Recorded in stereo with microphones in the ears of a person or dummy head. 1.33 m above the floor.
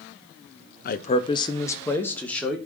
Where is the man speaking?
40° left (ahead or behind), 0.7 m; by 2.6 s centre (ahead or behind), 1.8 m.